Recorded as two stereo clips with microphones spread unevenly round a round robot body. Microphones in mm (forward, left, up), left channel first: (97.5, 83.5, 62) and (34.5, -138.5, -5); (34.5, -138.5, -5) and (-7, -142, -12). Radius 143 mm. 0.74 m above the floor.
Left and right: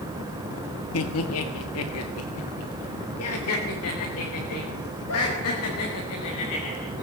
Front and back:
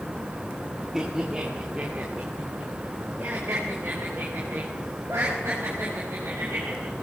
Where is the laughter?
105° left, 1.5 m; by 7.0 s 115° left, 6 m.